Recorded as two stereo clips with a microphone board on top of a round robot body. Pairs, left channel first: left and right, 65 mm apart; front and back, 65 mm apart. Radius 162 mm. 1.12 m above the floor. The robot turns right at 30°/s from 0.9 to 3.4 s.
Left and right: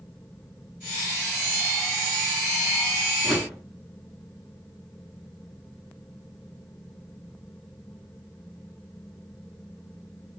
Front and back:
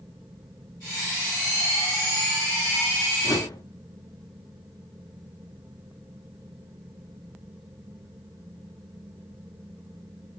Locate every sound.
3.2 s a whoosh: 5° right, 5 m; by 3.6 s straight ahead, 5 m